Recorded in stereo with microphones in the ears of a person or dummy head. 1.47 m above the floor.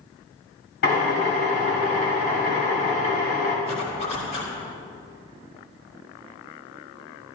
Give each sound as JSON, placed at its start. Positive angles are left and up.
{"t": 0.8, "sound": "a drill", "side_deg": 65, "distance_m": 4.5}
{"t": 3.6, "sound": "a zipper", "side_deg": 45, "distance_m": 3.0}